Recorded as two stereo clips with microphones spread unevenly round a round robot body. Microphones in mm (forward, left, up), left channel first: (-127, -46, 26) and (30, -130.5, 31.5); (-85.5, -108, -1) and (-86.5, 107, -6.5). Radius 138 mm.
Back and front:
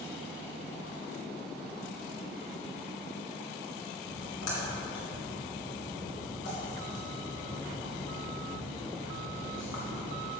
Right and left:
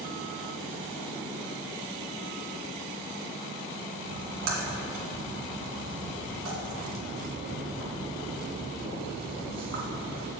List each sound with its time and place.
4.1 s a splash: 110° left, 2.5 m